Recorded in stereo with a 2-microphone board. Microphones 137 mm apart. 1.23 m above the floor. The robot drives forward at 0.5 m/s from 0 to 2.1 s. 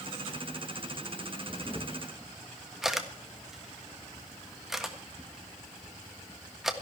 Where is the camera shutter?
5° right (ahead or behind), 1.3 m.